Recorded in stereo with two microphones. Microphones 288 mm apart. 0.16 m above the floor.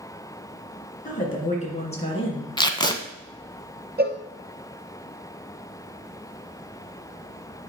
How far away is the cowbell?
About 1.0 m.